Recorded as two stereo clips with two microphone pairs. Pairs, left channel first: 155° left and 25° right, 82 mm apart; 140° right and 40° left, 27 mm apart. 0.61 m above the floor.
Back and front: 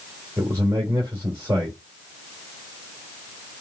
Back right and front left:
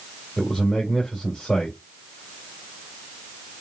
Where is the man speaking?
80° right, 2.5 m.